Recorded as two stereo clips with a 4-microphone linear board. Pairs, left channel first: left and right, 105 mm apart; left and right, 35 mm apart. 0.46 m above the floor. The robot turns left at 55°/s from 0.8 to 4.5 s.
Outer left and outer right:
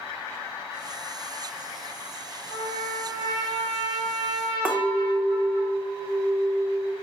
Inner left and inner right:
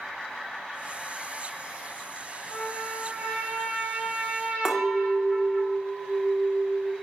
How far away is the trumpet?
About 1.5 m.